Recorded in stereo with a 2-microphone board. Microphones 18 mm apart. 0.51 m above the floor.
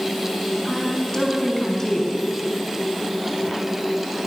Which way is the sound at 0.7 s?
25° left (ahead or behind).